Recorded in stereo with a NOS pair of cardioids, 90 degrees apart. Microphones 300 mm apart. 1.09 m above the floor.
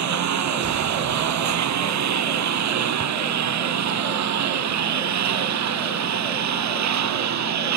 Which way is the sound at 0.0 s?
65° right.